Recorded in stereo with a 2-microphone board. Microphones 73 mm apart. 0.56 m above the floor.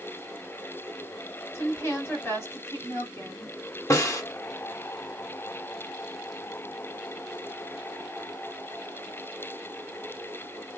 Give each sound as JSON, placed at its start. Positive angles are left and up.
{"t": 1.5, "sound": "a woman speaking", "side_deg": 35, "distance_m": 1.6}
{"t": 3.9, "sound": "a snare drum", "side_deg": 45, "distance_m": 1.1}